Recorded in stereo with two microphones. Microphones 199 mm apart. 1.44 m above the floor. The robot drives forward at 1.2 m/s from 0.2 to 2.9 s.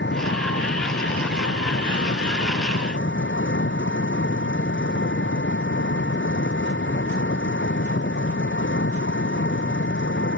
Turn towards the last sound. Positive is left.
turn(degrees=75)  # may be behind; listen again after turning